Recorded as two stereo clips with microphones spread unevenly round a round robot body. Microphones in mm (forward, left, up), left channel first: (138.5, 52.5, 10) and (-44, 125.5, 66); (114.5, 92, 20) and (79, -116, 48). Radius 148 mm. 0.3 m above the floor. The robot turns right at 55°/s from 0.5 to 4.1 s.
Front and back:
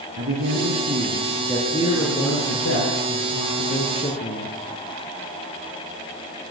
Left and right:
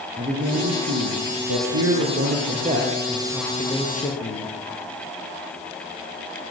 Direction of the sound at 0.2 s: 165° right.